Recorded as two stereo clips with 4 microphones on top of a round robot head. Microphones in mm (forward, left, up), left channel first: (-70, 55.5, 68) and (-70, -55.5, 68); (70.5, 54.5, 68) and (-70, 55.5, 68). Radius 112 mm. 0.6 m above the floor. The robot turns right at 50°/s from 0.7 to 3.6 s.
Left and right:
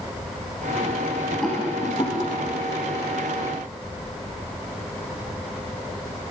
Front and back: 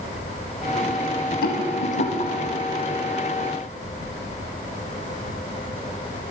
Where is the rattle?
Straight ahead, 1.8 m; by 2.3 s 45° left, 1.8 m.